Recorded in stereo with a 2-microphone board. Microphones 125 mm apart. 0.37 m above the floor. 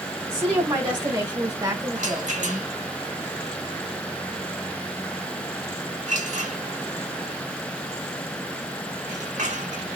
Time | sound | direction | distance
0.3 | a woman speaking | 35° right (ahead or behind) | 1.7 m
1.9 | a rattle | 80° right | 1.4 m